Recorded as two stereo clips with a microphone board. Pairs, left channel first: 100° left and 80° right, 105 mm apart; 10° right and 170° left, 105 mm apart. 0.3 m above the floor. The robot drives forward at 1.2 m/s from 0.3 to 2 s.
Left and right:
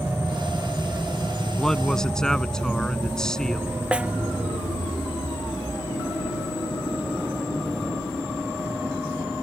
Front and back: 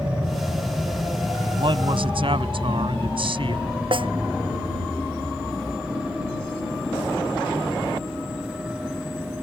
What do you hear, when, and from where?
1.6 s a man speaking: 175° right
3.9 s a snare drum: 160° right